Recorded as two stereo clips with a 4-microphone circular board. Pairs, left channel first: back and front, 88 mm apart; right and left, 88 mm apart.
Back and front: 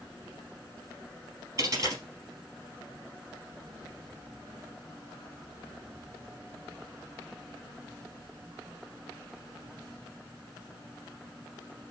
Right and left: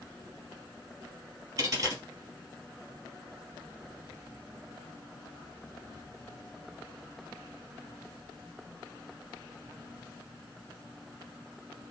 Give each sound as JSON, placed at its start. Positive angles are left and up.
{"t": 1.6, "sound": "a dropped coin", "azimuth_deg": 40, "distance_m": 3.0}